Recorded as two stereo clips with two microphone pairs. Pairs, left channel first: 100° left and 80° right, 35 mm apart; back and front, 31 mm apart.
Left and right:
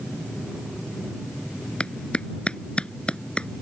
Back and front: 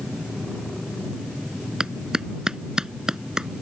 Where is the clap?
60° left.